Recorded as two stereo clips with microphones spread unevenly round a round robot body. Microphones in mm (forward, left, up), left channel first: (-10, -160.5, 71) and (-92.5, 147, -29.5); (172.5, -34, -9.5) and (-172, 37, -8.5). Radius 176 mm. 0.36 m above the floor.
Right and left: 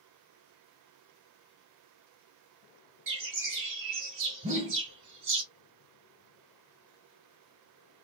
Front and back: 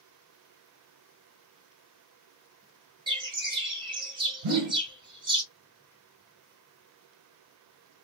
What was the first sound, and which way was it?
A bird, 95° left.